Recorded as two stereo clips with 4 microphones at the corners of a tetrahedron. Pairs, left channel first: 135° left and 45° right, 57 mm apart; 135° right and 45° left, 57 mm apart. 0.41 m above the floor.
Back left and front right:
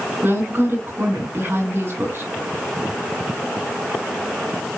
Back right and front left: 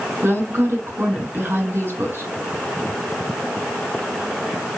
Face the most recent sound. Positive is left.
turn(degrees=0)